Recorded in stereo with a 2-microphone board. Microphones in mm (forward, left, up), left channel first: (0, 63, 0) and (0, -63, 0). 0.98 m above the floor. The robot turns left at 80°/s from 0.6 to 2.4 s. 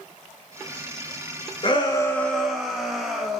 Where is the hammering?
No hammering in this recording.